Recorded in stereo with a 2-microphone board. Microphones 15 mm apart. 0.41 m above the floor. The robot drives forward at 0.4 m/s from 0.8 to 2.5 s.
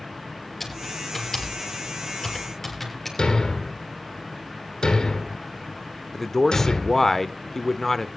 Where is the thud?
55° left (ahead or behind), 2.5 m.